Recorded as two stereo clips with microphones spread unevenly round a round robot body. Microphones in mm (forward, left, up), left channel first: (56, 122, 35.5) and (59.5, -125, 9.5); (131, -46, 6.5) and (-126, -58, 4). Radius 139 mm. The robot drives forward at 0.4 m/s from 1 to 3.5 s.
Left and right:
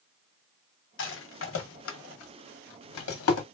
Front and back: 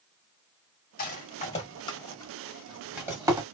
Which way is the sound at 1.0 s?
55° left.